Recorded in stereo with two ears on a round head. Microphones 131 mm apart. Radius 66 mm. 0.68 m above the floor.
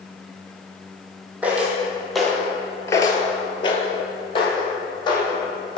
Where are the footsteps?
10° right (ahead or behind), 1.3 m; by 5.8 s 30° left (ahead or behind), 2 m.